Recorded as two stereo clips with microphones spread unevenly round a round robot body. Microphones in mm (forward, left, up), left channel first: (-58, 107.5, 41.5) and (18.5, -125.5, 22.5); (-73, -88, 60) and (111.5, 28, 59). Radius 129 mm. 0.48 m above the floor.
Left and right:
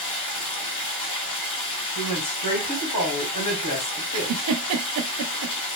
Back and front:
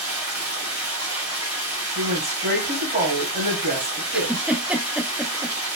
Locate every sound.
0.0 s running water: 110° left, 1.5 m
1.9 s a woman speaking: 95° left, 2 m
4.1 s a giggle: 55° right, 0.5 m